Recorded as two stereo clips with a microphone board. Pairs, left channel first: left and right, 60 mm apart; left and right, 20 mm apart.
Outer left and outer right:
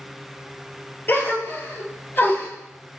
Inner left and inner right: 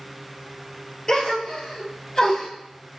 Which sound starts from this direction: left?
A gasp, at 1.1 s.